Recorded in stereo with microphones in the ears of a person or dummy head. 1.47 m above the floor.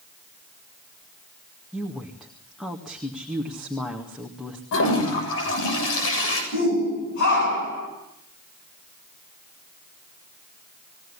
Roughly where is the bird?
No bird in this recording.